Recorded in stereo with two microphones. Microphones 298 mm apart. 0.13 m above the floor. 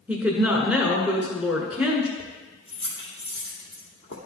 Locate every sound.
0.1 s a woman speaking: 5° right (ahead or behind), 1.4 m
2.2 s keys jangling: 40° left (ahead or behind), 2.5 m